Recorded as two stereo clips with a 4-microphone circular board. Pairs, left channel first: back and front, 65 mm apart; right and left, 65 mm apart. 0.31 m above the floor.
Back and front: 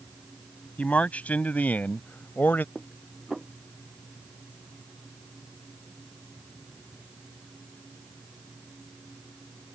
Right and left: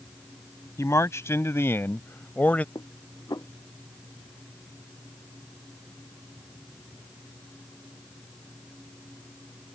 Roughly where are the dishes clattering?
Right.